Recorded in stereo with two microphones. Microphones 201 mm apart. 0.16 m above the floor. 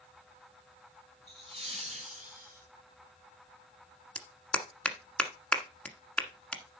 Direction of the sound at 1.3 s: 20° right (ahead or behind).